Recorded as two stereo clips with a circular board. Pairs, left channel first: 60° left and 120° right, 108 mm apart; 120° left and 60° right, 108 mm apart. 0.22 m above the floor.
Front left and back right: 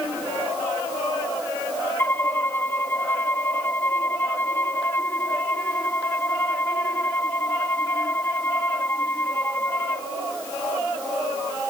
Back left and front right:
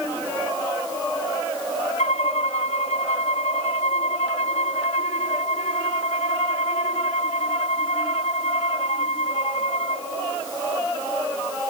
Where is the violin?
130° left.